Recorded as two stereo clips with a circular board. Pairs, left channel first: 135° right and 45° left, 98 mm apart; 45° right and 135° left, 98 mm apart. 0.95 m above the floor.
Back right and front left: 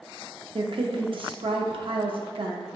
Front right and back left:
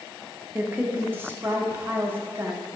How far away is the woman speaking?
About 0.7 m.